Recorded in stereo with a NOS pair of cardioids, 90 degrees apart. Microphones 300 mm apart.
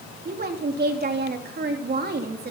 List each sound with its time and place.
0.2 s a woman speaking: 35° right, 3 m